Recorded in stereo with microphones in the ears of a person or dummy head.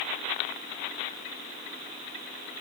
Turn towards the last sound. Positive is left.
No sound to turn to.